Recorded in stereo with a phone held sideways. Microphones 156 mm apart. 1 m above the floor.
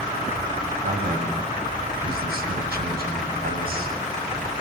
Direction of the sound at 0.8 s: 80° right.